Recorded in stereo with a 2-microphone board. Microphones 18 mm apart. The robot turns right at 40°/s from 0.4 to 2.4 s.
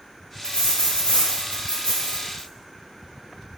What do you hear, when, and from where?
0.4 s a dropped coin: 45° left, 1.4 m; by 2.5 s 125° left, 1.4 m